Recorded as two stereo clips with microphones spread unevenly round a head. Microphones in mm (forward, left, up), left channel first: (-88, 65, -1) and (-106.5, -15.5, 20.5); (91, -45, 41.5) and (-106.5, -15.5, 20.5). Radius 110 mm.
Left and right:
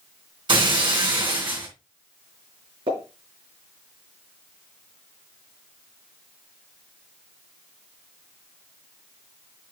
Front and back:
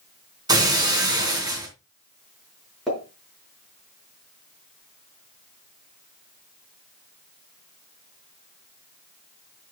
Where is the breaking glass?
115° right, 4 m.